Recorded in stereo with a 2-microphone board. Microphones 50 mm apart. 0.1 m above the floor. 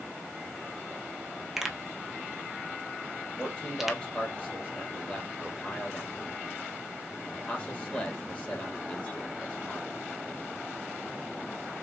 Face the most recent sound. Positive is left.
turn(degrees=30)  # may be behind; listen again after turning